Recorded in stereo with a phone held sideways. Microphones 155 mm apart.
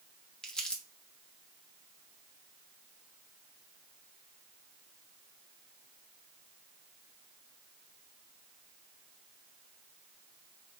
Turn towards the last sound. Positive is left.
turn(degrees=5)  # may be behind; listen again after turning